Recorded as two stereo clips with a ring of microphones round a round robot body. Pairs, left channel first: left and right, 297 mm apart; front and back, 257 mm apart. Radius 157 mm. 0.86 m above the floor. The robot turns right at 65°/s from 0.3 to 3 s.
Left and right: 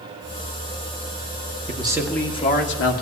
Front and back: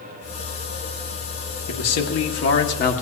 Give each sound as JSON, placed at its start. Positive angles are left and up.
{"t": 1.7, "sound": "a man speaking", "azimuth_deg": -25, "distance_m": 1.6}